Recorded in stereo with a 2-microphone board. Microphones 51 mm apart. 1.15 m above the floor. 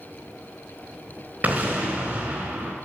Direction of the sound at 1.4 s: 35° right (ahead or behind).